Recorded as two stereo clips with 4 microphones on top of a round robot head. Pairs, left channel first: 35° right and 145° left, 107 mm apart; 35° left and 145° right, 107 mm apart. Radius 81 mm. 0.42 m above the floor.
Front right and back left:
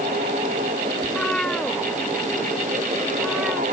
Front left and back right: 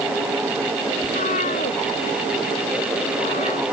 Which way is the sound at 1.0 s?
45° left.